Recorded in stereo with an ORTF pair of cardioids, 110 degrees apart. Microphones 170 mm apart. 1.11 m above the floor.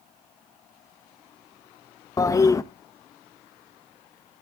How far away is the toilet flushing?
About 0.7 m.